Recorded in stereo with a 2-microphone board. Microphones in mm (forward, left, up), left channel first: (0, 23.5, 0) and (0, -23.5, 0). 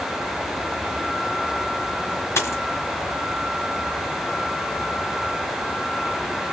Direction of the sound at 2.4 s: 85° left.